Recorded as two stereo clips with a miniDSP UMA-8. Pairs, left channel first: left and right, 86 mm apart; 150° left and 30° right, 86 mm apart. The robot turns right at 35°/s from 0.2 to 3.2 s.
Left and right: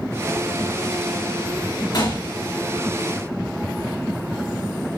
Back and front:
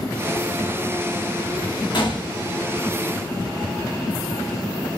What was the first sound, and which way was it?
A gunshot, 125° left.